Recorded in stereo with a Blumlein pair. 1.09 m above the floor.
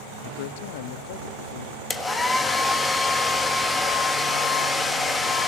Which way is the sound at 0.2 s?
50° left.